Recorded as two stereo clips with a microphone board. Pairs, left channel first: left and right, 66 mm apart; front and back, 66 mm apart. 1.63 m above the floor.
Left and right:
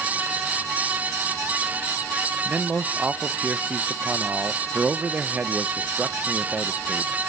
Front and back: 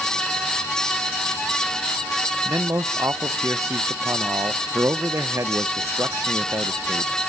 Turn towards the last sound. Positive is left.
turn(degrees=-150)